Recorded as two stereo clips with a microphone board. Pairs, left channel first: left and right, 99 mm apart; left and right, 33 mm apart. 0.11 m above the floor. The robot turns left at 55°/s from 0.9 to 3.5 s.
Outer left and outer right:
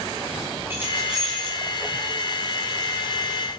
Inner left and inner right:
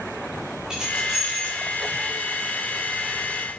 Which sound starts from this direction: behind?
Keys jangling, at 0.7 s.